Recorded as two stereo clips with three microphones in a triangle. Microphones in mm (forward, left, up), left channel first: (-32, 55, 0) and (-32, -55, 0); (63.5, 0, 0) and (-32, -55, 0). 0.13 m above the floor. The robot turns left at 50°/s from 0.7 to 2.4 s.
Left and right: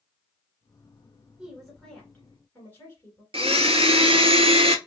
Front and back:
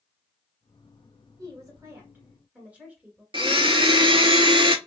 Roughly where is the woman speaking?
Behind.